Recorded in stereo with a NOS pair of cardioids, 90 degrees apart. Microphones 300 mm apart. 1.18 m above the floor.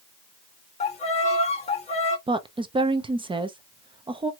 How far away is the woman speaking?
About 0.7 m.